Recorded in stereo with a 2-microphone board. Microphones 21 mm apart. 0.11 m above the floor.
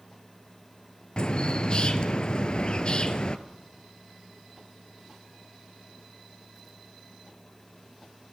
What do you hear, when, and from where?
1.2 s a bird: 45° left (ahead or behind), 0.9 m